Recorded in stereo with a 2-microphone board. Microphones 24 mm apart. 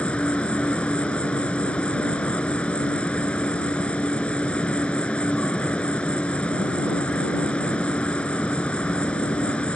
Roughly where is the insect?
Left.